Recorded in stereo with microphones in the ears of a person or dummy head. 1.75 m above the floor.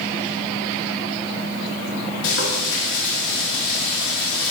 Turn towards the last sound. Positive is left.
turn(degrees=70)  # may be behind; listen again after turning